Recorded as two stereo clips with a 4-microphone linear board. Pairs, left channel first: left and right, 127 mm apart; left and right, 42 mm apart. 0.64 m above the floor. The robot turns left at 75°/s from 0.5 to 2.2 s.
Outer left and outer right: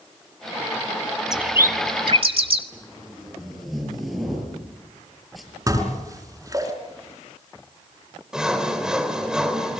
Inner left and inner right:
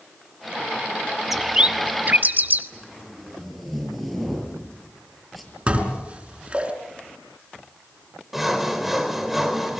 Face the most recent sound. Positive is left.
turn(degrees=-5)  # may be behind; listen again after turning